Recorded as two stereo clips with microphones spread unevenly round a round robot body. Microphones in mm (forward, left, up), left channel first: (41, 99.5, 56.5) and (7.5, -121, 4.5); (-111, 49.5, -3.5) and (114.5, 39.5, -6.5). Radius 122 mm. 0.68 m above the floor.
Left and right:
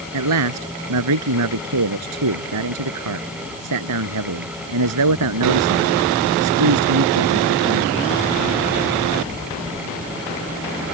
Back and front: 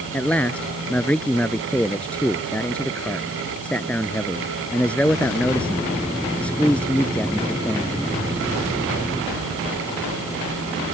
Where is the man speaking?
95° right.